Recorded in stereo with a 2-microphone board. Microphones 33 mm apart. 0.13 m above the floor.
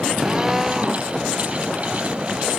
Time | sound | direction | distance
0.2 | a drill | 15° right (ahead or behind) | ?